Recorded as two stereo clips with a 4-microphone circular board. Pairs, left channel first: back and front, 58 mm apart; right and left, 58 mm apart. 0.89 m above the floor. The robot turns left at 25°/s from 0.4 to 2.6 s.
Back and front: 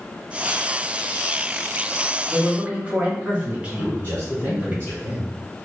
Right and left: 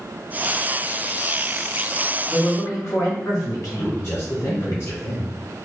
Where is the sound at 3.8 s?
125° right, 2 m.